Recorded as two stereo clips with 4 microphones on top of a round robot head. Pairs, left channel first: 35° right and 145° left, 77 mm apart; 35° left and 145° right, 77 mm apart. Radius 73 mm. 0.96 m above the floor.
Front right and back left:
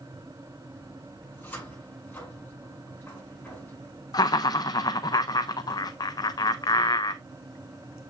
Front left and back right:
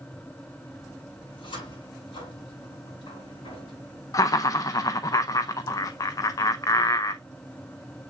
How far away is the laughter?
About 0.5 m.